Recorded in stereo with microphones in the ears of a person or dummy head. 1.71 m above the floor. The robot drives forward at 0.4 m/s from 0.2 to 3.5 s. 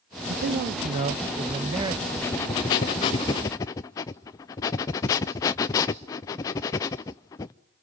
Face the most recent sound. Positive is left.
turn(degrees=15)  # may be behind; listen again after turning